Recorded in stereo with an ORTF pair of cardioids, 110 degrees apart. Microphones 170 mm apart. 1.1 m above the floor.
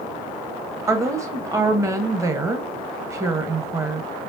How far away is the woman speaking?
About 1.0 m.